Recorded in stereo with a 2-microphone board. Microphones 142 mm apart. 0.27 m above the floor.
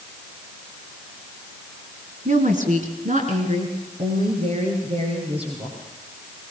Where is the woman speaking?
65° right (ahead or behind), 2.5 m; by 5.8 s 45° right (ahead or behind), 5.5 m.